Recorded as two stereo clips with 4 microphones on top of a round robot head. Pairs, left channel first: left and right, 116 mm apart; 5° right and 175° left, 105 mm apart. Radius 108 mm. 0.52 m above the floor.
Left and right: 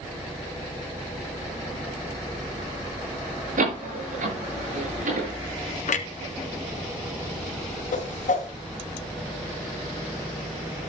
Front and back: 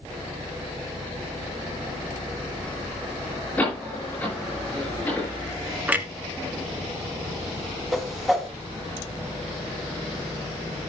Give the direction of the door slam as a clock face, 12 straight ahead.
3 o'clock.